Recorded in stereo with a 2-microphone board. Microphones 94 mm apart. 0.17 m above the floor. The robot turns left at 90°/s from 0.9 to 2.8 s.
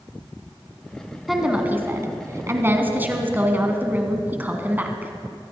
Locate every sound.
1.3 s a woman speaking: straight ahead, 1.6 m; by 5.1 s 140° right, 1.6 m